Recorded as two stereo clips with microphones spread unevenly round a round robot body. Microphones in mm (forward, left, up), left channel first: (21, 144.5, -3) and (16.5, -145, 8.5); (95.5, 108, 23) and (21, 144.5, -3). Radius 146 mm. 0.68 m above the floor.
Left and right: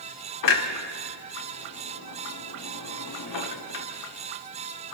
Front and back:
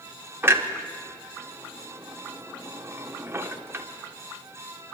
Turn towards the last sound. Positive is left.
turn(degrees=100)